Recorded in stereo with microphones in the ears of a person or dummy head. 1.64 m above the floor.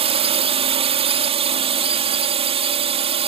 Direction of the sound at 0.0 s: 30° right (ahead or behind).